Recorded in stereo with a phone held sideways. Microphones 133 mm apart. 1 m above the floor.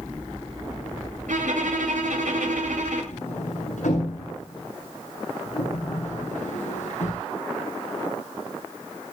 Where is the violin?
80° right, 9 m.